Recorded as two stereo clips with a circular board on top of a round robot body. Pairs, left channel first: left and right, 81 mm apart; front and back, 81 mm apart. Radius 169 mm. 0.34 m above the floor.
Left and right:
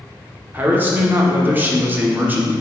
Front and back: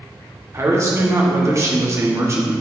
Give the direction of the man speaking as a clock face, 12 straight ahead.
5 o'clock.